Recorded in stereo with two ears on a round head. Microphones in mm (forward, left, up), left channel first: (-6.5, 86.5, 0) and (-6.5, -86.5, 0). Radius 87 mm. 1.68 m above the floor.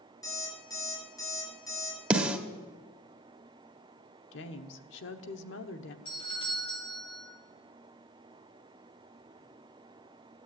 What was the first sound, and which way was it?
An alarm clock, 20° left (ahead or behind).